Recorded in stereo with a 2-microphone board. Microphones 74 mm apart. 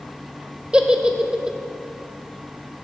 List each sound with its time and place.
0.7 s a giggle: 10° right (ahead or behind), 0.6 m